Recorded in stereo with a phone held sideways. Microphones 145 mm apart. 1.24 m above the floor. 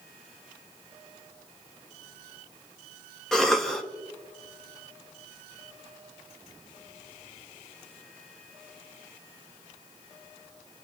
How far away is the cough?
About 1.5 m.